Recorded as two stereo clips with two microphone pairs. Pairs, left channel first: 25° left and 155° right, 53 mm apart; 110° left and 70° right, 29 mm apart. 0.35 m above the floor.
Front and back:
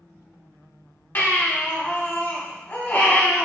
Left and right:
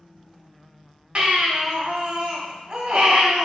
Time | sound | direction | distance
1.1 | a baby crying | 20° right | 1.0 m